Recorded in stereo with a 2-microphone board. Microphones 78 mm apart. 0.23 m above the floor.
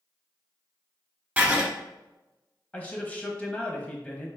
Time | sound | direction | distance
1.4 | writing | 20° right (ahead or behind) | 1.2 m
2.7 | a man speaking | 15° left (ahead or behind) | 1.0 m